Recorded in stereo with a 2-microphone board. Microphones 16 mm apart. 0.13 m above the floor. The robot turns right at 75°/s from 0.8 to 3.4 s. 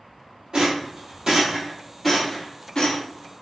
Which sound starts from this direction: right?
A rattle, at 0.5 s.